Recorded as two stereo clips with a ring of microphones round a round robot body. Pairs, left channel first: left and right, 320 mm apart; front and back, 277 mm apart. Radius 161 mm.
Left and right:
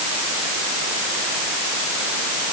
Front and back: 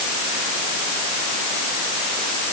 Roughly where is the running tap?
I don't hear a running tap.